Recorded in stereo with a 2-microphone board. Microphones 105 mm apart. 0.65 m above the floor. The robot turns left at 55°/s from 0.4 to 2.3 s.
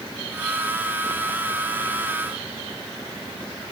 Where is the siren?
I don't hear a siren.